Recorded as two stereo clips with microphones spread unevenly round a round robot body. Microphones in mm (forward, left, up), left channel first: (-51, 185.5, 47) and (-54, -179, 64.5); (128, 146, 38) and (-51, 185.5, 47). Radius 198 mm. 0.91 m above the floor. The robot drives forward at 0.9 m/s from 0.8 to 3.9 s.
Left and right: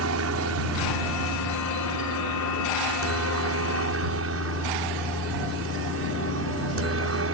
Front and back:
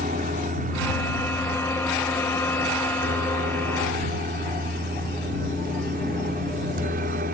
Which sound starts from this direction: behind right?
A helicopter, at 0.0 s.